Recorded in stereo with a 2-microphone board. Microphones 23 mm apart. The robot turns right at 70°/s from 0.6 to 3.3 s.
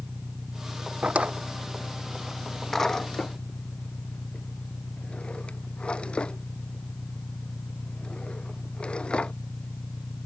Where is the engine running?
75° right; by 10.3 s 115° left.